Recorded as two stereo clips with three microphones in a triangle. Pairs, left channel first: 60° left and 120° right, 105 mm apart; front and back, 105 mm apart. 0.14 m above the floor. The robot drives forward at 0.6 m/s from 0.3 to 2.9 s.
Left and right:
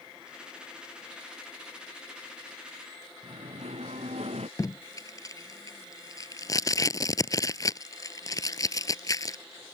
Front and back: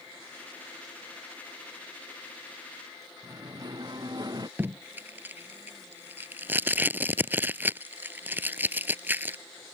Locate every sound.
3.2 s singing: 130° right
4.6 s tape being pulled: 110° left